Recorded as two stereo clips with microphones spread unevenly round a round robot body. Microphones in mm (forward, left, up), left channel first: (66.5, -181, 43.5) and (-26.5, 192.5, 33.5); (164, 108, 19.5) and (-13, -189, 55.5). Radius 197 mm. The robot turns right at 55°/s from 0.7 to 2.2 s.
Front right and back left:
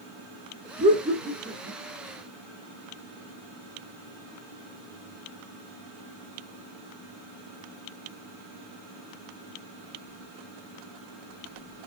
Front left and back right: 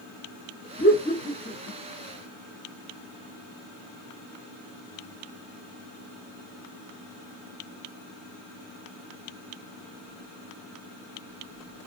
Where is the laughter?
50° left, 1.2 m; by 1.8 s 105° left, 1.2 m.